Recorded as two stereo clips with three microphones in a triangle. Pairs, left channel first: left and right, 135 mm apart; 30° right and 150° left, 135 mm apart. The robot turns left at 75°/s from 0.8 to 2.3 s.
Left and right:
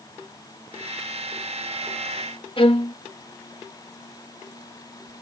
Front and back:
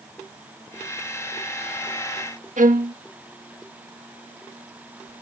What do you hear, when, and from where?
2.6 s a violin: 135° left